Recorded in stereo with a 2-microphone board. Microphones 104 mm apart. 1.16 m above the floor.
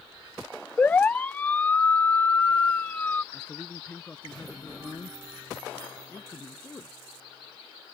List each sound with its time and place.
0.8 s a siren: 15° left (ahead or behind)
3.3 s a man speaking: 10° left (ahead or behind)